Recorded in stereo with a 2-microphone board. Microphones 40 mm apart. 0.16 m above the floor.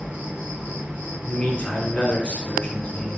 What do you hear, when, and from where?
0.0 s an insect: 35° right (ahead or behind), 0.8 m
1.2 s a man speaking: 35° left (ahead or behind), 1.2 m